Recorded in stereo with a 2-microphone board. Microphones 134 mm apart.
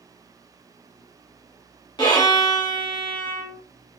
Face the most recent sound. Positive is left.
turn(degrees=30)  # may be behind; listen again after turning